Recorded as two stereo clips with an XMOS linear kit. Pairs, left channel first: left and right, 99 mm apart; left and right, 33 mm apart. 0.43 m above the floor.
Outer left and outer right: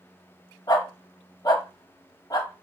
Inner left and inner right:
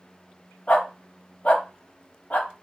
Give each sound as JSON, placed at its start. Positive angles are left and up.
{"t": 0.7, "sound": "a dog barking", "side_deg": 40, "distance_m": 0.7}